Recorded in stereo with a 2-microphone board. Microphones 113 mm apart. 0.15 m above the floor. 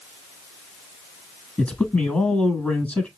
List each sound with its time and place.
1.6 s a man speaking: 15° left (ahead or behind), 1.2 m